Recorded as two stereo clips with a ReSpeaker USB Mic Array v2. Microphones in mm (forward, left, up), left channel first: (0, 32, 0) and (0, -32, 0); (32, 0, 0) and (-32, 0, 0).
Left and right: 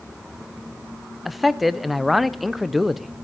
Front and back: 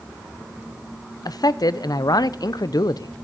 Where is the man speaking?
Straight ahead, 0.6 m.